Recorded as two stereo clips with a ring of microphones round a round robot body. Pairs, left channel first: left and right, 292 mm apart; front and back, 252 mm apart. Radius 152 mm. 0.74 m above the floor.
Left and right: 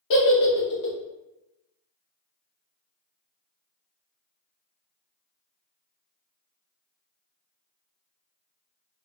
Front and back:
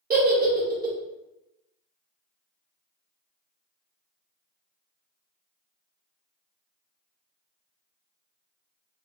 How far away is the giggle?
About 0.7 m.